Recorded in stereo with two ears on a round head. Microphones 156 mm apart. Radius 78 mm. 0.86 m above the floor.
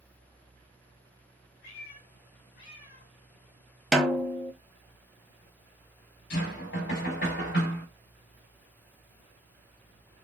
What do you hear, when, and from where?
1.6 s a cat meowing: 60° left (ahead or behind), 2.5 m
3.9 s a snare drum: centre (ahead or behind), 0.6 m
6.3 s knocking: 70° left (ahead or behind), 3 m